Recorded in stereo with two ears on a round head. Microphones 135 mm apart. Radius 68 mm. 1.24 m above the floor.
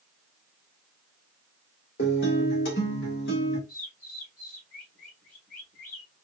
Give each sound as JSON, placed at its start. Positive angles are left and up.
{"t": 2.0, "sound": "a guitar", "side_deg": 75, "distance_m": 2.0}
{"t": 3.7, "sound": "a bird", "side_deg": 60, "distance_m": 3.5}